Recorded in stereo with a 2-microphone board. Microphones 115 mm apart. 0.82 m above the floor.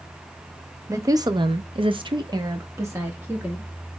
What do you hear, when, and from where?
0.9 s a woman speaking: 25° right (ahead or behind), 0.8 m; by 3.7 s 15° right (ahead or behind), 1.7 m